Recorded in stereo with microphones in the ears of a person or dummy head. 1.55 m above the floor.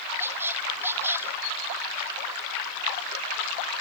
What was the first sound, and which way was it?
A squeak, 10° right (ahead or behind).